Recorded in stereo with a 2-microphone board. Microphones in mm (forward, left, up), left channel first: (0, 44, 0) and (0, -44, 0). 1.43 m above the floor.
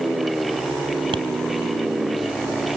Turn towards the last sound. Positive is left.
turn(degrees=-75)  # may be behind; listen again after turning